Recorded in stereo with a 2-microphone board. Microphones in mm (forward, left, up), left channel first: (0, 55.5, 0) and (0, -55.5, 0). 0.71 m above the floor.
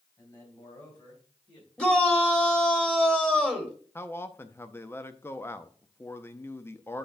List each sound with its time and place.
0.2 s a man speaking: 35° left (ahead or behind), 4 m; by 1.7 s 40° left (ahead or behind), 5 m
1.8 s a shout: 10° left (ahead or behind), 1.7 m
4.0 s a man speaking: 20° left (ahead or behind), 0.6 m